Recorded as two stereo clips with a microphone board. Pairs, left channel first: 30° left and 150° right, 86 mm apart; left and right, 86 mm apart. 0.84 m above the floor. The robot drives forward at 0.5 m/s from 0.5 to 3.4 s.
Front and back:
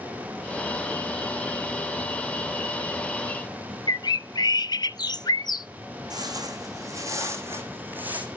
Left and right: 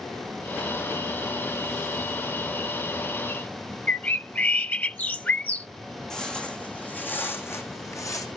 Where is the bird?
25° left, 0.6 m.